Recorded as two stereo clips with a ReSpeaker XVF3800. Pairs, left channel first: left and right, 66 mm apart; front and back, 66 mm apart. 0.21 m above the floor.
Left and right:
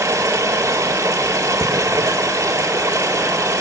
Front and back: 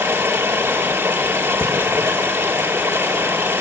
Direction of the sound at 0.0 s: 130° right.